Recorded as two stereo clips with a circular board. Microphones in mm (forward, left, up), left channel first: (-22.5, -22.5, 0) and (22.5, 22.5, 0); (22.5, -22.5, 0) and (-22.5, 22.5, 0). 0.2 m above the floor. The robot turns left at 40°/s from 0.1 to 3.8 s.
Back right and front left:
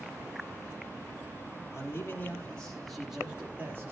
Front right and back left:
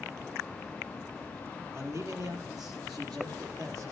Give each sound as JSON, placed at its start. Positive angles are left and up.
{"t": 1.7, "sound": "a man speaking", "azimuth_deg": -175, "distance_m": 5.0}